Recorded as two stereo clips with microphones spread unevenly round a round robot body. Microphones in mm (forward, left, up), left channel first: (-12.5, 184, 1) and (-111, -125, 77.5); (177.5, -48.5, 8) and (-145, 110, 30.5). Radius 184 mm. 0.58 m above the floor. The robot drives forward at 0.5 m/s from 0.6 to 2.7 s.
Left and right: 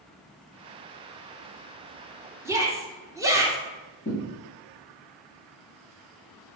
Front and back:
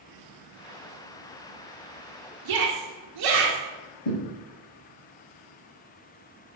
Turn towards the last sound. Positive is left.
turn(degrees=5)